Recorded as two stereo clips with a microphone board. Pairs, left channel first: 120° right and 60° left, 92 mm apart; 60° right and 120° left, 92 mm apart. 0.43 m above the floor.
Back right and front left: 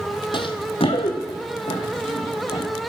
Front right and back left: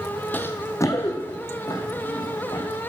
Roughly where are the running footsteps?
Behind right.